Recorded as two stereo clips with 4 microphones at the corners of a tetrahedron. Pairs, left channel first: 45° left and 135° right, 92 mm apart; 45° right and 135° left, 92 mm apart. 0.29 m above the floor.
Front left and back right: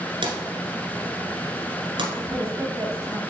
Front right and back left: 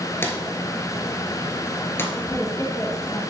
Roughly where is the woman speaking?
Right.